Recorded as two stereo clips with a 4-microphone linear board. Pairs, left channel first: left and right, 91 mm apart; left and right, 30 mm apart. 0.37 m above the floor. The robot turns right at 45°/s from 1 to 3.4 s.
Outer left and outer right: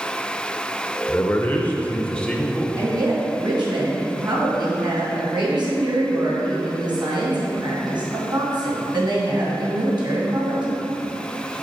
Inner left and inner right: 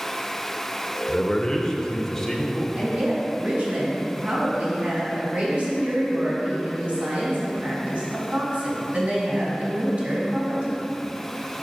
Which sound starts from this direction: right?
A woman speaking, at 2.8 s.